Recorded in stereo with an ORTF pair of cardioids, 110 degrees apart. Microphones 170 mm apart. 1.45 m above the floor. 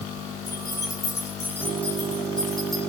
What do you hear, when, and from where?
0.5 s keys jangling: 25° left, 5 m; by 2.8 s straight ahead, 6.5 m